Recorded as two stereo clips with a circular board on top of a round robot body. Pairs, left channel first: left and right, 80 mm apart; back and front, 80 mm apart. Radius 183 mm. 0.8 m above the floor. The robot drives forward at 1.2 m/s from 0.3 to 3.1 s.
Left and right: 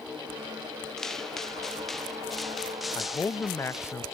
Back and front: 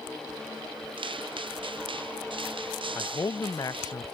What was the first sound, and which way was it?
Footsteps, 5° left.